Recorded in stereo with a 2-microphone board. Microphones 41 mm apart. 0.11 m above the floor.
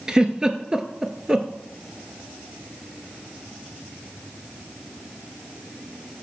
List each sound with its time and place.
0.1 s a giggle: 20° right (ahead or behind), 0.5 m